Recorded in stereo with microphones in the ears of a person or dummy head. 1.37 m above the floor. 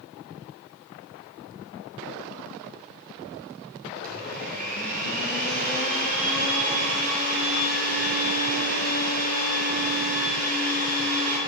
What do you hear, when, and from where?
4.0 s a blender: 45° right (ahead or behind), 7.5 m